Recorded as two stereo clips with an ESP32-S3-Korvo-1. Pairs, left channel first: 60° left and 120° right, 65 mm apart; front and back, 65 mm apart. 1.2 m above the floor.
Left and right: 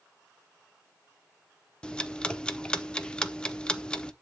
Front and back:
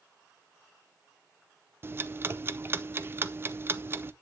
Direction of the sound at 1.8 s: 135° left.